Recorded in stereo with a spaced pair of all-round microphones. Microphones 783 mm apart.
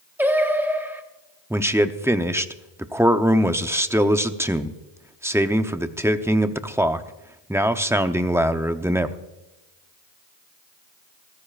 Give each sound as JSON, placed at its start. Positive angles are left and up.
{"t": 0.2, "sound": "singing", "side_deg": -5, "distance_m": 1.2}
{"t": 1.5, "sound": "a man speaking", "side_deg": -5, "distance_m": 0.6}